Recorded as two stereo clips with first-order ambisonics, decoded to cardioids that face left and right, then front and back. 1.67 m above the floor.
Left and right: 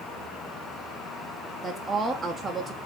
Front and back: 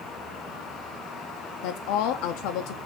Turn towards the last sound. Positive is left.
turn(degrees=-10)